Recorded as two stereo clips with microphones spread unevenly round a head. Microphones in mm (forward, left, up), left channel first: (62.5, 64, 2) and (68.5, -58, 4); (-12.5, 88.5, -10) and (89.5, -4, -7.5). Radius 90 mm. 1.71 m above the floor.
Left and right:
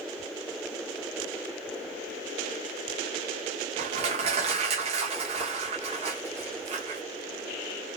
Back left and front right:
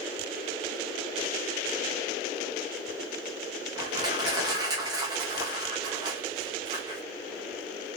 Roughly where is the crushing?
Right.